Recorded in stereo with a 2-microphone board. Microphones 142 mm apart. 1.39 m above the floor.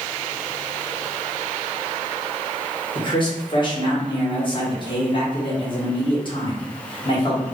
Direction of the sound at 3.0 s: 35° left (ahead or behind).